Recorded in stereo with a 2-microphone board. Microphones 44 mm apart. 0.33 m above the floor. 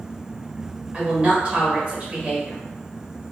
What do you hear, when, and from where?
0.9 s a woman speaking: 25° right (ahead or behind), 0.9 m